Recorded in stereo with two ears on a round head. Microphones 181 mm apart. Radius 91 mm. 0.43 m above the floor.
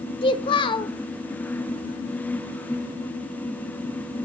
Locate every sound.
0.2 s a child speaking: 25° left (ahead or behind), 1.0 m